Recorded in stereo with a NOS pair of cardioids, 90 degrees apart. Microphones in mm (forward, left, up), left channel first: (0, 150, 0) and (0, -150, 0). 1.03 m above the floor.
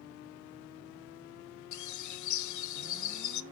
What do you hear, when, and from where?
1.7 s a bird: 70° left, 0.8 m